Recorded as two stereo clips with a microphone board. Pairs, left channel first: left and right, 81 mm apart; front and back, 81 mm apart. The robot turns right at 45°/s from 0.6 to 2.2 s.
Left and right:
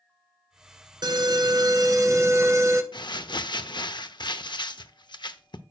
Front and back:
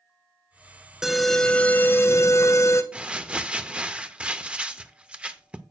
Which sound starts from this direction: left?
Crumpling, at 2.9 s.